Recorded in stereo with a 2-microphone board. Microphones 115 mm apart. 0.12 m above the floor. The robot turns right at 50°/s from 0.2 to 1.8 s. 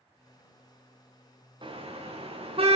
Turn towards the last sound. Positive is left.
turn(degrees=-55)  # may be behind; listen again after turning